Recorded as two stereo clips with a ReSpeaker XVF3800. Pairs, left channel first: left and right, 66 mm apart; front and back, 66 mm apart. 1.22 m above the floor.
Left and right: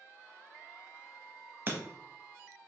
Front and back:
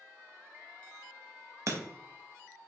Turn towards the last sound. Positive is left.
turn(degrees=-140)